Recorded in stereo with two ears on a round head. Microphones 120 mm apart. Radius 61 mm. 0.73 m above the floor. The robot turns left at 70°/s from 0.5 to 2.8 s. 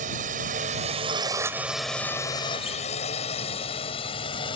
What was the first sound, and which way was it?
A drone, 65° right (ahead or behind).